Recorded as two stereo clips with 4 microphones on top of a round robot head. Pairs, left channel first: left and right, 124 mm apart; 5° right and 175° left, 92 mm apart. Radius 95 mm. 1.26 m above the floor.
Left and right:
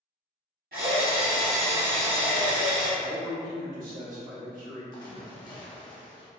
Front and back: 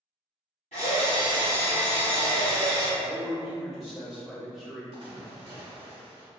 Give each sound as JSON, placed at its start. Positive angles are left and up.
{"t": 0.7, "sound": "a drill", "azimuth_deg": -60, "distance_m": 1.1}
{"t": 3.0, "sound": "a man speaking", "azimuth_deg": -95, "distance_m": 1.5}
{"t": 4.9, "sound": "a splash", "azimuth_deg": 145, "distance_m": 0.7}